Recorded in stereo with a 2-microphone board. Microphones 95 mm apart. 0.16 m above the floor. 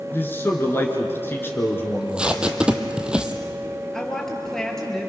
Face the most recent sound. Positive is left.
turn(degrees=5)  # may be behind; listen again after turning